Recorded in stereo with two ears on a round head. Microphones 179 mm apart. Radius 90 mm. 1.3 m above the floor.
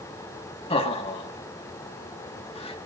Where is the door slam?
I don't hear a door slam.